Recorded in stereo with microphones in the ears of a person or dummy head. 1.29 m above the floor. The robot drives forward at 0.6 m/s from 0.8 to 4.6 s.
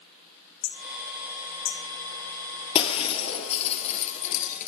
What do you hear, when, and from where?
0.6 s hammering: 80° left, 2.5 m; by 1.8 s 70° left (ahead or behind), 3 m
2.8 s breaking glass: 35° left (ahead or behind), 3 m; by 4.7 s 45° left (ahead or behind), 2.5 m